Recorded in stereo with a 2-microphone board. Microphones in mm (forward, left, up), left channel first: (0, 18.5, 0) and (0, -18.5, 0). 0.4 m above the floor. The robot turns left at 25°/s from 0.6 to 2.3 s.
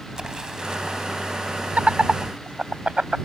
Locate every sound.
0.1 s an explosion: 20° right (ahead or behind); by 1.1 s 30° right (ahead or behind)
1.8 s laughter: 40° right (ahead or behind); by 3.2 s 30° right (ahead or behind)